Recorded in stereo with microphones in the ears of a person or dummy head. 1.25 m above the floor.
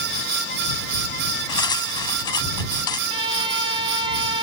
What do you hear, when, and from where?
1.5 s cutlery clinking: 25° left (ahead or behind)
3.1 s a violin: 30° right (ahead or behind)